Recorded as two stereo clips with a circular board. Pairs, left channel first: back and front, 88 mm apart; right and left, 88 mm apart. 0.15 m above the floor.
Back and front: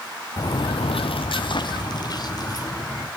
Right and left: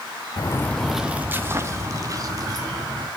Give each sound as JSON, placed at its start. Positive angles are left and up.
{"t": 0.4, "sound": "footsteps", "azimuth_deg": -135, "distance_m": 0.8}